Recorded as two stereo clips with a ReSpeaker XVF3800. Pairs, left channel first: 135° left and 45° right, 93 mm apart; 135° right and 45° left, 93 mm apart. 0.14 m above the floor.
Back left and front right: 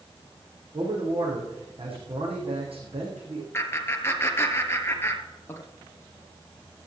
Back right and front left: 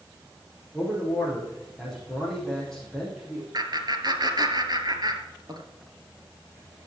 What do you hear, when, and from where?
0.7 s a man speaking: 50° right, 7 m
3.5 s laughter: 75° left, 2 m